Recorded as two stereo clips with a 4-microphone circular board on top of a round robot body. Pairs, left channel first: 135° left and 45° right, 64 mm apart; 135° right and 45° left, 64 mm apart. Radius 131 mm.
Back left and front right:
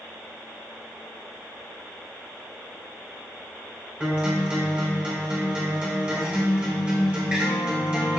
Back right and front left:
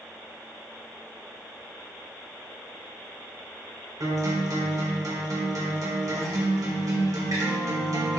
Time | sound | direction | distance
4.0 | a guitar | 25° left | 3.5 m